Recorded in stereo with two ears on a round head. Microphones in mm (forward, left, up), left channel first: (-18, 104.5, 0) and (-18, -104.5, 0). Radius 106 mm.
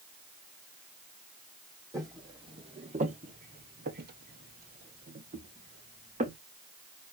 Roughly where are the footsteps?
Centre.